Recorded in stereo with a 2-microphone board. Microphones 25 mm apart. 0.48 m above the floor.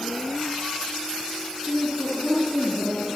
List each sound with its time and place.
1.6 s a woman speaking: 80° right, 6.5 m